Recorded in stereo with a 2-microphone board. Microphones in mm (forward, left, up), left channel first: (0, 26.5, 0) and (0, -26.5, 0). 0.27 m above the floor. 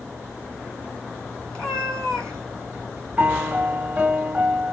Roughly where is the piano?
Right.